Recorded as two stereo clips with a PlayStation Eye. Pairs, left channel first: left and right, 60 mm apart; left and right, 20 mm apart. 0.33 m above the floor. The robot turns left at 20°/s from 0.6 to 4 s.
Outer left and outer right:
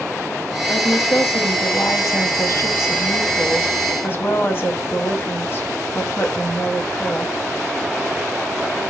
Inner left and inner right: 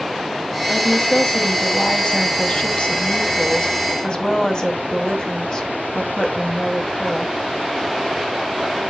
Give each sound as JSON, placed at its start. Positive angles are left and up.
{"t": 0.7, "sound": "a woman speaking", "azimuth_deg": 110, "distance_m": 1.9}